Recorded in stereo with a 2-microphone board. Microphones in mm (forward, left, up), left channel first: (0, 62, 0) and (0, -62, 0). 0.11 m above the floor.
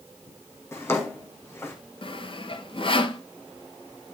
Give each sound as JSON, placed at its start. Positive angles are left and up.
{"t": 0.7, "sound": "a drawer", "side_deg": 20, "distance_m": 2.5}
{"t": 2.0, "sound": "sawing", "side_deg": 45, "distance_m": 0.8}